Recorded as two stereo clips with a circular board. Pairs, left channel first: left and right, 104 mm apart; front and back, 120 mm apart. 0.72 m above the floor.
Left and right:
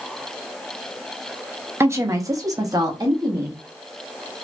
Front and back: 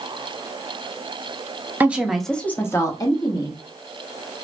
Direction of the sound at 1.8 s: 125° right.